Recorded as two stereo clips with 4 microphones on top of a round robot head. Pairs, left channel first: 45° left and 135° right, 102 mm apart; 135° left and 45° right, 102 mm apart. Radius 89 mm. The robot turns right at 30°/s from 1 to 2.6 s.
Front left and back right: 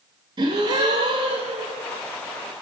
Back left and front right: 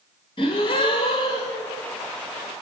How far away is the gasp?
About 0.7 m.